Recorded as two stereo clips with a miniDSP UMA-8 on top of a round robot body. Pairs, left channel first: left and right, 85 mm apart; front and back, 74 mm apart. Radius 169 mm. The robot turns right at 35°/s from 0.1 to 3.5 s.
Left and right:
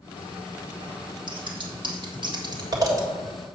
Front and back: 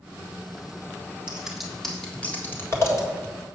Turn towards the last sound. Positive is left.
turn(degrees=-25)